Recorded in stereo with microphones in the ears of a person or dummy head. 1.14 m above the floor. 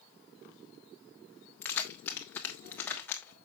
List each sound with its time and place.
1.6 s keys jangling: 10° left (ahead or behind), 1.3 m